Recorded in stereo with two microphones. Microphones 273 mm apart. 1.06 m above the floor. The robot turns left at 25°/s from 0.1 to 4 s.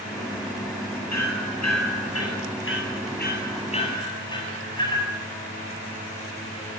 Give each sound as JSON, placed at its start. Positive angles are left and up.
{"t": 1.1, "sound": "hammering", "side_deg": 85, "distance_m": 7.5}